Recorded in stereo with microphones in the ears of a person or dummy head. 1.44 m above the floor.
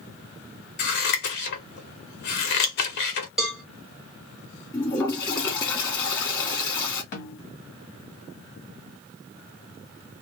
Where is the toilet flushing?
20° left (ahead or behind), 1.8 m.